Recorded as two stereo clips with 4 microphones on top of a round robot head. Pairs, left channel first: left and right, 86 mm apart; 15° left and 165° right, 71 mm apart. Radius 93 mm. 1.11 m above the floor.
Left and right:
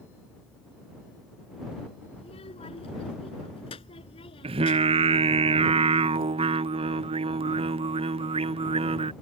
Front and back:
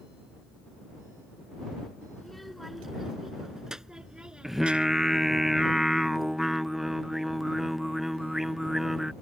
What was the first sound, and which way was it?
A child speaking, 100° left.